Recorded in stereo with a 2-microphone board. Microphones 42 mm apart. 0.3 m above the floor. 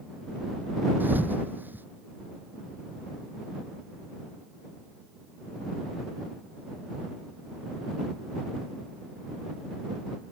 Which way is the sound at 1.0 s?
50° right (ahead or behind).